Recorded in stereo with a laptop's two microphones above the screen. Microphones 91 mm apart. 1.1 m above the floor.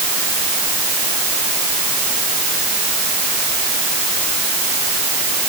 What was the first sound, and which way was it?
Only background noise.